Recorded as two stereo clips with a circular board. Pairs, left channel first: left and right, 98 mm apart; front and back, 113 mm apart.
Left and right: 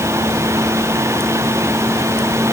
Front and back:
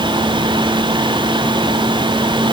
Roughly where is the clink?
I don't hear a clink.